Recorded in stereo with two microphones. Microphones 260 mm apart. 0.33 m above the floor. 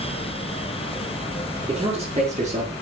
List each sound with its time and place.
1.7 s a man speaking: 20° right (ahead or behind), 6 m; by 2.7 s 30° right (ahead or behind), 5.5 m